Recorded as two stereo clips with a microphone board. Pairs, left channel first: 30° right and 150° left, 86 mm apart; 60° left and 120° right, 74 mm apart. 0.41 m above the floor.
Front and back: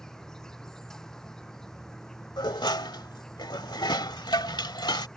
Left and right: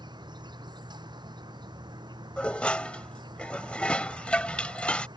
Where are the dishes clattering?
15° right.